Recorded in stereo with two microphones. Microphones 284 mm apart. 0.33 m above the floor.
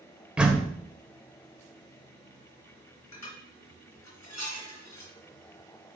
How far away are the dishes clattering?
About 2.5 m.